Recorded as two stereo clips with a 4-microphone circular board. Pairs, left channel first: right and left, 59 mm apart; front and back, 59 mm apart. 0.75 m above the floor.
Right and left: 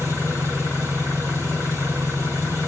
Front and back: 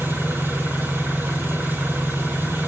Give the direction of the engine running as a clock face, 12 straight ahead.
8 o'clock.